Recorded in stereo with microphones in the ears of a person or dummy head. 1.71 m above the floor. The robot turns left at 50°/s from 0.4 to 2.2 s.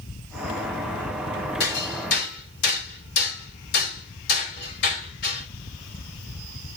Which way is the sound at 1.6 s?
70° left (ahead or behind).